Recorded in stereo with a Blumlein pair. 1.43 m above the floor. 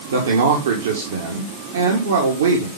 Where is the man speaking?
65° right, 1.6 m.